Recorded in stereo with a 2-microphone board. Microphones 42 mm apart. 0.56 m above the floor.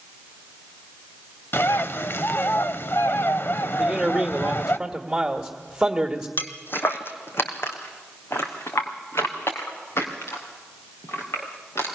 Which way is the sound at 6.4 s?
45° left (ahead or behind).